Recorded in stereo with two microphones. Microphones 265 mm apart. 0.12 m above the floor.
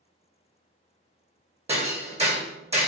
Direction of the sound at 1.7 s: 25° right (ahead or behind).